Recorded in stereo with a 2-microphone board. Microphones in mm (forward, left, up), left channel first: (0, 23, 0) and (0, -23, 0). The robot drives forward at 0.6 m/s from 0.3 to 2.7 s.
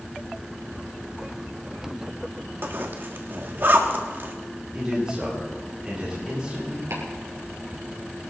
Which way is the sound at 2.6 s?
50° right (ahead or behind).